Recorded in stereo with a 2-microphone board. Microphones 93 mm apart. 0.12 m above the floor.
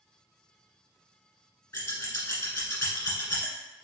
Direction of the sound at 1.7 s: 25° left (ahead or behind).